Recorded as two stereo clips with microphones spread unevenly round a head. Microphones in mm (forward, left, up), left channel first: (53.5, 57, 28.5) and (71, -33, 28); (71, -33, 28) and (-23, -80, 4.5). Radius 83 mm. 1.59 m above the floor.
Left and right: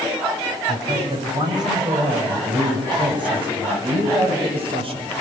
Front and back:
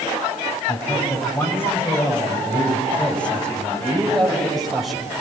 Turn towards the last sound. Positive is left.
turn(degrees=-65)